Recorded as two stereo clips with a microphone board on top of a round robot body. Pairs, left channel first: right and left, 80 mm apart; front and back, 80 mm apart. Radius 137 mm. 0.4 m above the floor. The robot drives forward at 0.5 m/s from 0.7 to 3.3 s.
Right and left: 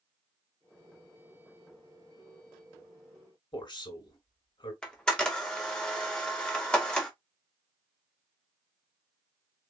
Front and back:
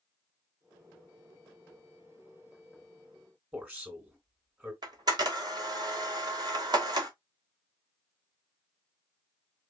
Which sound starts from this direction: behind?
A camera shutter, at 4.8 s.